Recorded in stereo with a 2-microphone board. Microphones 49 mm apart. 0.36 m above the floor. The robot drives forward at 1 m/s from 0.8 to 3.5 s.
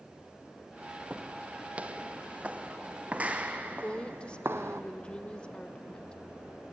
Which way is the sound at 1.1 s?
25° right (ahead or behind).